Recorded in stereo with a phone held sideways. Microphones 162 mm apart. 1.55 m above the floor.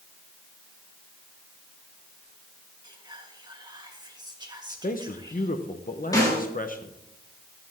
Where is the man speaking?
60° left (ahead or behind), 0.9 m.